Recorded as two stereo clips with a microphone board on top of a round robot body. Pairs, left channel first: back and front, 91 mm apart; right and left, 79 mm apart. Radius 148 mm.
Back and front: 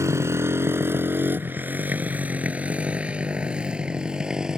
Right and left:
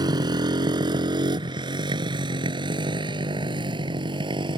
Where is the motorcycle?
60° left; by 4.6 s 80° left.